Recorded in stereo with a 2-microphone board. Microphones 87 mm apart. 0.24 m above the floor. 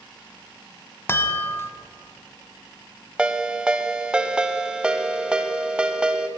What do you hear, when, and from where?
1.1 s a chime: 25° left (ahead or behind), 0.9 m
3.2 s a ringtone: 10° right (ahead or behind), 0.6 m